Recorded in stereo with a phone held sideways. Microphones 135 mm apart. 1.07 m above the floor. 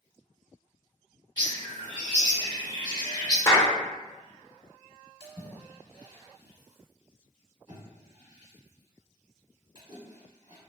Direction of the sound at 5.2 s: 30° right (ahead or behind).